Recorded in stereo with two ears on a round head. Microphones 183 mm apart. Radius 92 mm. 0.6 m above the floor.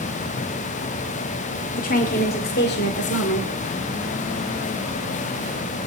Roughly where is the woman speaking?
Left.